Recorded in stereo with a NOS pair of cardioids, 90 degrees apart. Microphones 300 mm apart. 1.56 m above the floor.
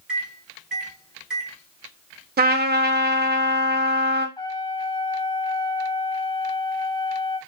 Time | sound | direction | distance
0.1 | a microwave | 5° right | 1.2 m
2.4 | a trumpet | 35° right | 0.8 m
4.4 | a trumpet | 15° left | 0.8 m